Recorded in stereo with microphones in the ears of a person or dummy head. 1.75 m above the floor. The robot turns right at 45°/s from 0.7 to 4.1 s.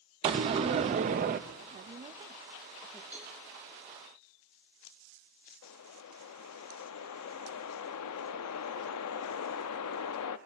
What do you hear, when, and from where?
0.2 s a door slam: 20° right (ahead or behind), 0.5 m; by 1.4 s 25° right (ahead or behind), 0.5 m
1.6 s a woman speaking: 60° right, 0.5 m; by 3.0 s 5° left, 0.5 m
3.1 s a cowbell: 5° right (ahead or behind), 2 m; by 3.4 s 5° left (ahead or behind), 2 m
5.6 s a whoosh: 80° left, 0.6 m